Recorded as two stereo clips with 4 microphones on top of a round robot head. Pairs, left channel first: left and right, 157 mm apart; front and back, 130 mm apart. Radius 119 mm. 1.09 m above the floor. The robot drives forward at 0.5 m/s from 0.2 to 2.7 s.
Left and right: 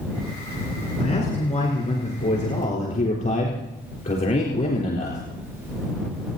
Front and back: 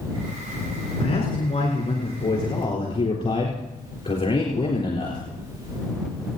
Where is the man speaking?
45° left, 4.5 m; by 5.2 s 55° left, 4 m.